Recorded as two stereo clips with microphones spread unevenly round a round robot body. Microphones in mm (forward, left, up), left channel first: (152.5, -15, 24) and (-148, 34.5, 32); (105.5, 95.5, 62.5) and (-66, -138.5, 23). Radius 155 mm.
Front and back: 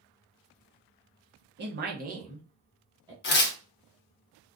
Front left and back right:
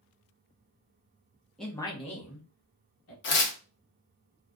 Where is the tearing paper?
35° left, 0.6 m.